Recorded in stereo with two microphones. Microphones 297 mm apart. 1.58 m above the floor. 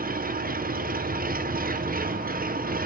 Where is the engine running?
30° right (ahead or behind), 0.7 m.